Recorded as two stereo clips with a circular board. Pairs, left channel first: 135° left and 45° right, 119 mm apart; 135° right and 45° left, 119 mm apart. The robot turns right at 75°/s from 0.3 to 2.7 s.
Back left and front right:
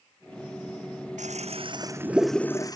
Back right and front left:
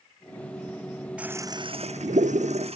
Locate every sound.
1.2 s a toilet flushing: 35° right; by 2.8 s 75° left